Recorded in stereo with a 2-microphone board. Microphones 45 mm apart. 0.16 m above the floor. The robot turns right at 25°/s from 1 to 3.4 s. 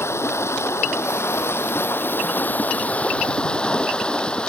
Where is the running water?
100° left; by 4.5 s 160° left.